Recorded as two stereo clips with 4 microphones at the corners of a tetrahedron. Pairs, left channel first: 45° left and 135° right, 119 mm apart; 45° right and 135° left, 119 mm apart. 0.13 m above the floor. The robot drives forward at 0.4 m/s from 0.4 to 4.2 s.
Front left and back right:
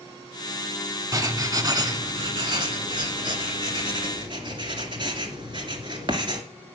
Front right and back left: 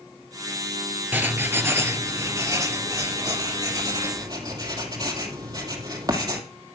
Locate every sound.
1.1 s writing: 165° right, 1.2 m; by 6.4 s 175° right, 2 m